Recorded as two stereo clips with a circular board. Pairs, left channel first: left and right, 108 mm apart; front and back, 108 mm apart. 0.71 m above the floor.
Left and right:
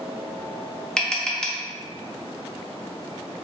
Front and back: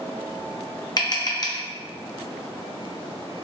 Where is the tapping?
10° left, 0.5 m.